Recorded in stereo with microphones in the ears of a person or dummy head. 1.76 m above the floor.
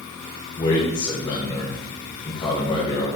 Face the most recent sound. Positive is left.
turn(degrees=30)  # may be behind; listen again after turning